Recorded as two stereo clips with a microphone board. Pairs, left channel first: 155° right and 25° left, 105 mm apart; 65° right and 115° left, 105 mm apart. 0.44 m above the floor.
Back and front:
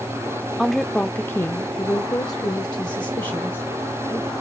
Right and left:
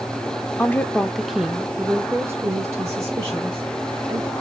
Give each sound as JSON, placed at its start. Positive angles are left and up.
{"t": 0.6, "sound": "a woman speaking", "azimuth_deg": -65, "distance_m": 0.8}